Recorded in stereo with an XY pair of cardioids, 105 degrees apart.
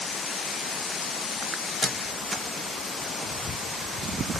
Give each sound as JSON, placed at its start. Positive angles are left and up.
{"t": 1.8, "sound": "a squeak", "azimuth_deg": 0, "distance_m": 0.7}